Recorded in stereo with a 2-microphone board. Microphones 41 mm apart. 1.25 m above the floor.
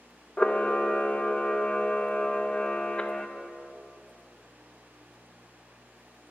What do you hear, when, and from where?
0.4 s a camera shutter: 25° left (ahead or behind), 0.5 m